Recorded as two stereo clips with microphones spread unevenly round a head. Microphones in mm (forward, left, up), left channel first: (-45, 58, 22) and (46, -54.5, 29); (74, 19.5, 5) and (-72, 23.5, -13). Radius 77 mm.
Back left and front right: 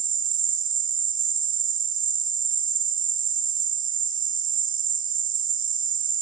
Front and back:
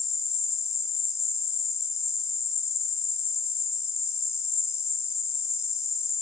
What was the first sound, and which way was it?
An insect, 80° right.